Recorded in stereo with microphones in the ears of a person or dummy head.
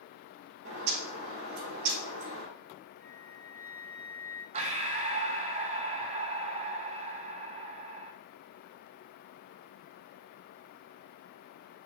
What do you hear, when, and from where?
0.7 s a bird: 75° right (ahead or behind), 2.5 m
3.0 s a flute: 45° right (ahead or behind), 0.9 m
4.5 s breathing: 35° right (ahead or behind), 0.5 m